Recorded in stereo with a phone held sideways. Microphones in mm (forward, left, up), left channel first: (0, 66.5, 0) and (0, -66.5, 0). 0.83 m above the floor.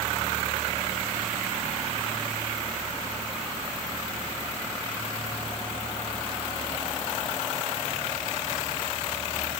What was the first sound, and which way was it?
Only background noise.